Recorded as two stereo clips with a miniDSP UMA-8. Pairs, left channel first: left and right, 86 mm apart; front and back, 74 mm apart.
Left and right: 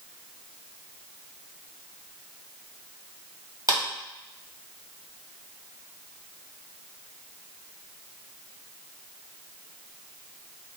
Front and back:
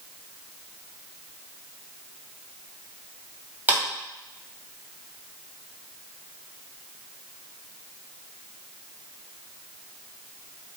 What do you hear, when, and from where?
3.7 s a clap: 120° right, 1.8 m